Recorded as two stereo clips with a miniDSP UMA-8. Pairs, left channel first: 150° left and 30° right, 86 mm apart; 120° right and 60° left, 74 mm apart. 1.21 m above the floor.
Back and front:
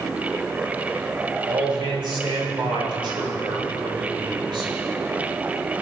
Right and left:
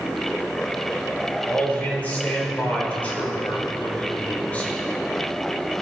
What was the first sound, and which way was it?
A man speaking, 50° right.